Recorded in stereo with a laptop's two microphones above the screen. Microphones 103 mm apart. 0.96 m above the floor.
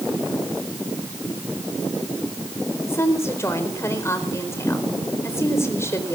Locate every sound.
2.9 s a woman speaking: 25° left (ahead or behind), 4.5 m